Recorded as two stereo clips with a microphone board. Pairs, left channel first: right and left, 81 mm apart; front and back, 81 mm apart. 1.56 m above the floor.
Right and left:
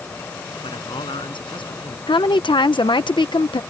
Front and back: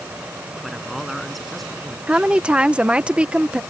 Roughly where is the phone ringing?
I don't hear a phone ringing.